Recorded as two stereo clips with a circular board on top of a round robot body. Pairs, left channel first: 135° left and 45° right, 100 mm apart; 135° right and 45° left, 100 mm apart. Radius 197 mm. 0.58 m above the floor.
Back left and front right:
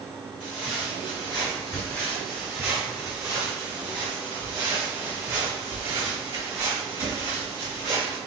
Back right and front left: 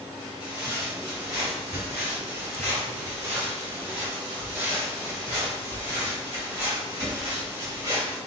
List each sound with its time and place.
0.4 s footsteps: 120° left, 1.1 m; by 8.2 s 10° right, 3.5 m